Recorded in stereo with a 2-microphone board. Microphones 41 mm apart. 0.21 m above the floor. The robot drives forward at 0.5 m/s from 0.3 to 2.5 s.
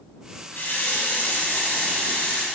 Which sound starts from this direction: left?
A running tap, at 0.5 s.